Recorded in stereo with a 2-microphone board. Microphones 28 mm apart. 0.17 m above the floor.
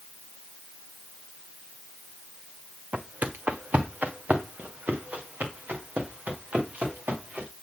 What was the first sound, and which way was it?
Footsteps, 75° right (ahead or behind).